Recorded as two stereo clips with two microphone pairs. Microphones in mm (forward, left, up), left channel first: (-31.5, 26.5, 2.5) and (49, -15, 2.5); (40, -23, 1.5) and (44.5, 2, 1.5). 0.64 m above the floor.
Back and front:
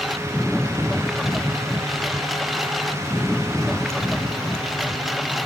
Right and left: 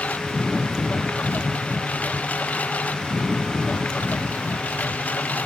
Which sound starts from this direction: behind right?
A lawn mower, at 0.0 s.